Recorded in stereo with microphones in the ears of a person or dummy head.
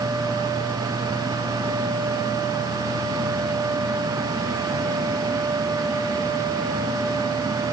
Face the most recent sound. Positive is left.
No sound to turn to.